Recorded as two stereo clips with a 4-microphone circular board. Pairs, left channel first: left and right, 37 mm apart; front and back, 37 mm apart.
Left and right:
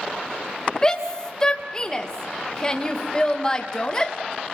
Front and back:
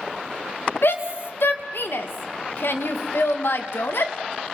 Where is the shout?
20° left, 2.5 m.